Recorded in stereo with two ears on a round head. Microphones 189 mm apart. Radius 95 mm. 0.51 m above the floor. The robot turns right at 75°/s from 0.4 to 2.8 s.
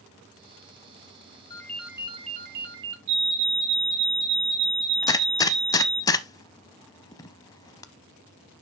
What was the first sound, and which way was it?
A ringtone, 160° left.